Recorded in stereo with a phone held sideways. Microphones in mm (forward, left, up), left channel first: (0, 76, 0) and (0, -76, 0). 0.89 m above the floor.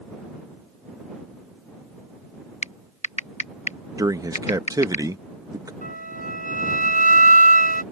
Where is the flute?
65° right (ahead or behind).